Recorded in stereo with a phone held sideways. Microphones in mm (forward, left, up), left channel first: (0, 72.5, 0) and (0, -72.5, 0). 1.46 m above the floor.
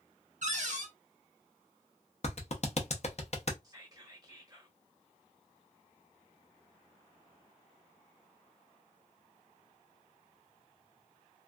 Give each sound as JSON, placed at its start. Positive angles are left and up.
{"t": 0.4, "sound": "a cupboard door", "side_deg": -60, "distance_m": 0.9}
{"t": 2.2, "sound": "a clap", "side_deg": 50, "distance_m": 0.7}
{"t": 3.6, "sound": "whispering", "side_deg": -25, "distance_m": 1.1}